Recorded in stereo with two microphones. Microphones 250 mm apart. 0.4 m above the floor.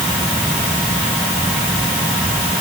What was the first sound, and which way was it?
Only background noise.